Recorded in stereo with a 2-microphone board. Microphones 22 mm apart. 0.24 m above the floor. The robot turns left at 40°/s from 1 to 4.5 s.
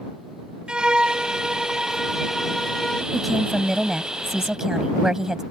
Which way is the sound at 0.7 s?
115° right.